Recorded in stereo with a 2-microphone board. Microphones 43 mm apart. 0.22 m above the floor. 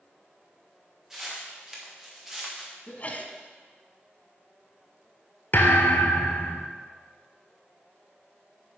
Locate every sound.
1.1 s footsteps: 10° right (ahead or behind), 4 m
2.9 s a sneeze: 35° left (ahead or behind), 1.7 m
5.5 s a thud: 50° left (ahead or behind), 1.5 m